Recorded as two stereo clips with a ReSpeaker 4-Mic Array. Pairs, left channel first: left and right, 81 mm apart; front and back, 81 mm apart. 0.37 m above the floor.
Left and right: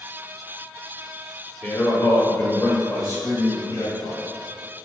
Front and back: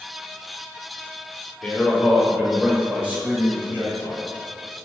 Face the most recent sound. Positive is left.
turn(degrees=120)